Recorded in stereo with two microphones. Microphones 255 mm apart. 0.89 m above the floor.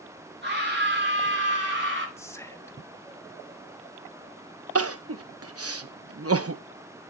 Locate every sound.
0.4 s a scream: 45° right (ahead or behind), 8 m
2.2 s whispering: 10° left (ahead or behind), 1.6 m
4.8 s crying: 65° right (ahead or behind), 0.7 m